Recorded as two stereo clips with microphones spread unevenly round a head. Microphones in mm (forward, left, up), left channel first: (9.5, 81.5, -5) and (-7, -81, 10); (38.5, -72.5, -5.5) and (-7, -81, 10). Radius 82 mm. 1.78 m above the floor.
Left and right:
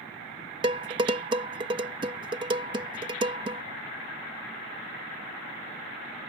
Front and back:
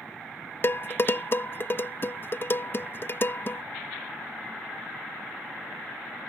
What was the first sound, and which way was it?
Dishes clattering, 35° right.